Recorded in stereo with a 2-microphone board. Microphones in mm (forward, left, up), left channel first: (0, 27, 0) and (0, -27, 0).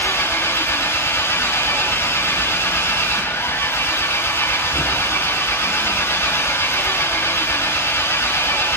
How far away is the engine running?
About 7 m.